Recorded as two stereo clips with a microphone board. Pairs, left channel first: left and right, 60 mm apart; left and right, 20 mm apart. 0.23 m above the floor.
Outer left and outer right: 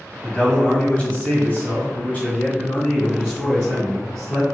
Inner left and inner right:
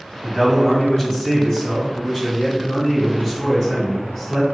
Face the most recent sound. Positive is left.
turn(degrees=20)  # may be behind; listen again after turning